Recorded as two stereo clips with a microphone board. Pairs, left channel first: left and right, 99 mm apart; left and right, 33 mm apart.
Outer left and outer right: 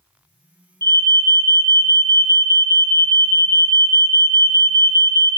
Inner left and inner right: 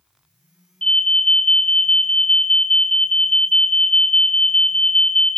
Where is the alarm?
30° left (ahead or behind), 3 m.